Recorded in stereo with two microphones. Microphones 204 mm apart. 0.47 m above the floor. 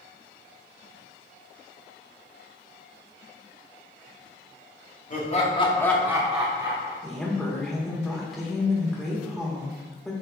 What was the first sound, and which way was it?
Laughter, 40° left (ahead or behind).